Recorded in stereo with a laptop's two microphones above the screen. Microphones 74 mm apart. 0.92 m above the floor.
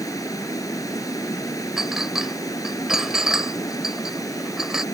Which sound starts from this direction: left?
Running water, at 0.0 s.